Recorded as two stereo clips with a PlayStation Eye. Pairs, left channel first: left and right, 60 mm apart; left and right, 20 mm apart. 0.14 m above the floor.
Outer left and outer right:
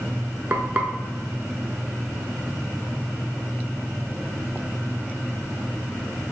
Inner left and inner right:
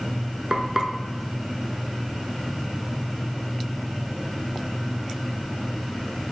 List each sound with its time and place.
0.5 s frying: 30° right (ahead or behind), 0.6 m